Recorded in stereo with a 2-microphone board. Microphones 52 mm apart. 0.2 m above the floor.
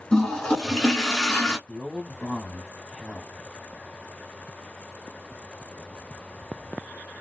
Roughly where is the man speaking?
Centre.